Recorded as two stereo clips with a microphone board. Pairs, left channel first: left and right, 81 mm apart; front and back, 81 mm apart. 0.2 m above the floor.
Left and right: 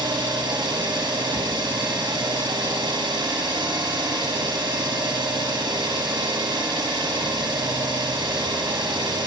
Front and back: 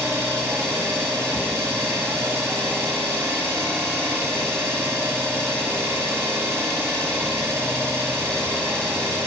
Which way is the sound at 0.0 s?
120° right.